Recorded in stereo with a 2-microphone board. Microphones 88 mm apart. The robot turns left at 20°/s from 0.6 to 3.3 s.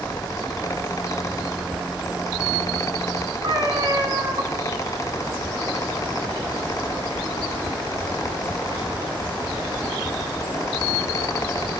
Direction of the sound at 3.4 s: 50° right (ahead or behind).